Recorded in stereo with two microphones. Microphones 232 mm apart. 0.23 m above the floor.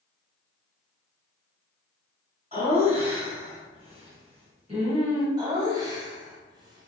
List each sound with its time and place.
2.5 s laughter: 25° right (ahead or behind), 1.8 m
5.4 s laughter: 20° right (ahead or behind), 1.0 m